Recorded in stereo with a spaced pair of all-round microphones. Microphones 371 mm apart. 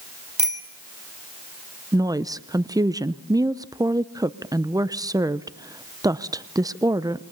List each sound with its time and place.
0.4 s a bicycle bell: 75° right (ahead or behind), 2.5 m
1.9 s a woman speaking: 10° right (ahead or behind), 0.6 m